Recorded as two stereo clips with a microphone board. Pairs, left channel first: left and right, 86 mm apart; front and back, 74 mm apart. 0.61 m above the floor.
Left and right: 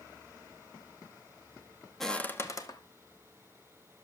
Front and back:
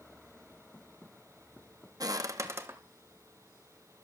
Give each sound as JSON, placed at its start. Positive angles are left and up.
{"t": 2.0, "sound": "footsteps", "azimuth_deg": 175, "distance_m": 0.9}